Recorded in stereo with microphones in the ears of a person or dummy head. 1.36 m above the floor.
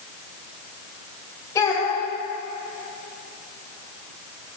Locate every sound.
1.6 s a child speaking: 25° left (ahead or behind), 3.5 m